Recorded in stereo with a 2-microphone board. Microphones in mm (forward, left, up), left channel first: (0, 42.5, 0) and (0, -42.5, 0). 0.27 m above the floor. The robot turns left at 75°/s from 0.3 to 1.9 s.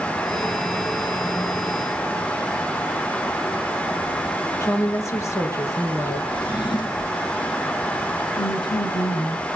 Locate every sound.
4.6 s a woman speaking: 40° left (ahead or behind), 4 m
6.3 s a drawer: 70° left (ahead or behind), 1.5 m
8.4 s a woman speaking: 65° left (ahead or behind), 3.5 m